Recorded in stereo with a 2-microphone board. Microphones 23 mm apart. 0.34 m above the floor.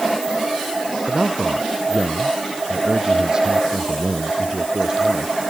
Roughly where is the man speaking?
Right.